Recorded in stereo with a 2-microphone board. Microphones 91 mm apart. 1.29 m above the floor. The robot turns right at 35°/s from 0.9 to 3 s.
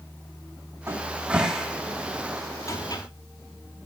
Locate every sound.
0.9 s a cupboard door: 30° right (ahead or behind), 4.5 m; by 3.0 s 45° left (ahead or behind), 4.5 m